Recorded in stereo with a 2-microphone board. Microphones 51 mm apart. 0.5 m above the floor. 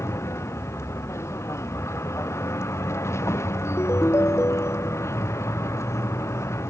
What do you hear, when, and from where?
0.0 s a vehicle: 60° left (ahead or behind); by 6.7 s 65° left (ahead or behind)
3.6 s a ringtone: 60° left (ahead or behind)